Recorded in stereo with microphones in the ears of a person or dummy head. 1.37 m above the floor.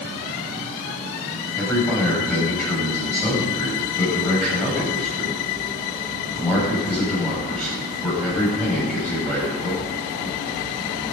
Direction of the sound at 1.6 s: 5° left (ahead or behind).